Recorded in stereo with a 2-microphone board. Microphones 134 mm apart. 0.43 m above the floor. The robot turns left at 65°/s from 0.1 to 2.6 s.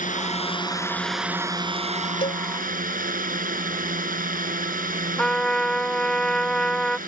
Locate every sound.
0.0 s a drone: 70° left; by 7.1 s 95° right
2.2 s a cowbell: 40° left (ahead or behind); by 2.4 s 50° left (ahead or behind)
5.2 s a trumpet: 5° left (ahead or behind)